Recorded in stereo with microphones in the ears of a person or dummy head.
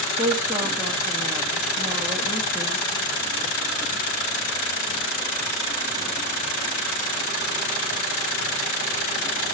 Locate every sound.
0.2 s a woman speaking: 20° right (ahead or behind), 2.5 m